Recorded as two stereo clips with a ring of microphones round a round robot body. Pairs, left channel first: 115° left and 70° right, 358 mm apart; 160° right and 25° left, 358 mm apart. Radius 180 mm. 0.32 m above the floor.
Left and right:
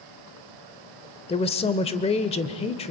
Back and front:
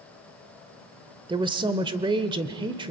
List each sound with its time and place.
1.3 s a woman speaking: 75° left, 0.9 m